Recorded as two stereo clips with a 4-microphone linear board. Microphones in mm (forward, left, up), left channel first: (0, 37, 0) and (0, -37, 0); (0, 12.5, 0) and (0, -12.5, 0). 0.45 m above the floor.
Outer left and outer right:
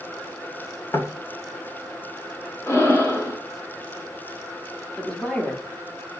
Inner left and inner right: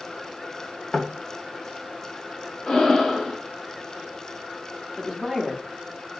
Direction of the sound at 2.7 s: 35° left (ahead or behind).